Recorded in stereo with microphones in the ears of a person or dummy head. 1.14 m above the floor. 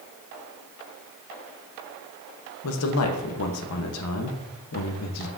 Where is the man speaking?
70° left (ahead or behind), 1.1 m.